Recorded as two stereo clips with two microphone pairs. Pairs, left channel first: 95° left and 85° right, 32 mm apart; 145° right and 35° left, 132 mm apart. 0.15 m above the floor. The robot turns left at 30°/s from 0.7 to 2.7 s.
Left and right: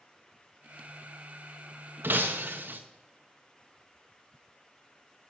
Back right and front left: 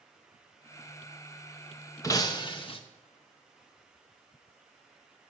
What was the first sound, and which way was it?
Breaking glass, 75° right.